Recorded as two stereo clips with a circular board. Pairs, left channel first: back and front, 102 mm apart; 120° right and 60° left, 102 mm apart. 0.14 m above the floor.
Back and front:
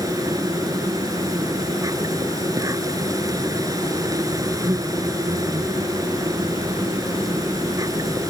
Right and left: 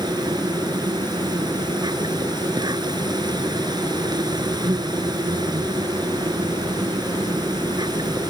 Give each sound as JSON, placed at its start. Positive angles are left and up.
{"t": 0.0, "sound": "an insect", "azimuth_deg": 40}